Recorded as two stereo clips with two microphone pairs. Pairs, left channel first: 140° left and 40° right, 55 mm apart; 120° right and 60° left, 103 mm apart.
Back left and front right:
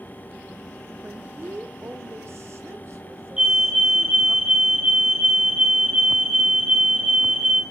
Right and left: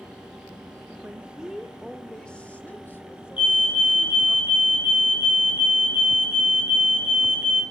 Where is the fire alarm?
105° right, 3 m.